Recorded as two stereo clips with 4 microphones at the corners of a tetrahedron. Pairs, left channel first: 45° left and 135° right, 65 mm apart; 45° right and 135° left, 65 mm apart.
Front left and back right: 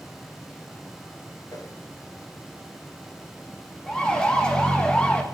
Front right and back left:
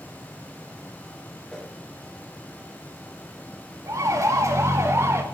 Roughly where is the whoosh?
Ahead left.